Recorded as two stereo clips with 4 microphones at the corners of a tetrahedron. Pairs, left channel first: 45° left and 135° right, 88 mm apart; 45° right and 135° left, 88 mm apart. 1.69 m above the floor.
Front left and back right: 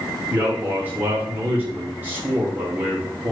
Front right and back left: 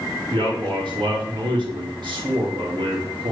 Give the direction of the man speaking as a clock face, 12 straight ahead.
7 o'clock.